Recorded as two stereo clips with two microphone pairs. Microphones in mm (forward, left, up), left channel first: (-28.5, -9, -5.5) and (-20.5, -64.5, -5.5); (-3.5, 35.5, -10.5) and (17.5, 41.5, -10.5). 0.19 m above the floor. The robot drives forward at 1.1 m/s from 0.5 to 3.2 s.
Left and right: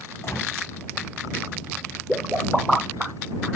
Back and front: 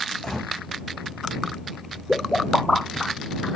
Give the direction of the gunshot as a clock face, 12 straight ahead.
8 o'clock.